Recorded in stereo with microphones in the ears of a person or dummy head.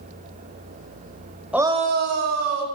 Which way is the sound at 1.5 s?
5° right (ahead or behind).